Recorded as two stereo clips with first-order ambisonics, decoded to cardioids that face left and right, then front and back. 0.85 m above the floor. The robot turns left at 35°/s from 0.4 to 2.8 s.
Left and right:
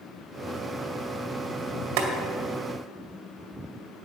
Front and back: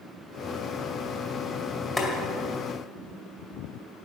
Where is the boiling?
75° right, 2 m; by 2.1 s 80° right, 2 m.